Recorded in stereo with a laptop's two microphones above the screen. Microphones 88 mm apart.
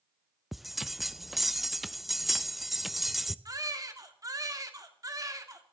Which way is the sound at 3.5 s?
40° right (ahead or behind).